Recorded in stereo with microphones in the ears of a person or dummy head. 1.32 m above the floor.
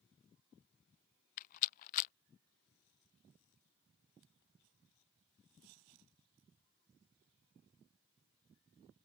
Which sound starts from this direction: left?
A rattle, at 1.4 s.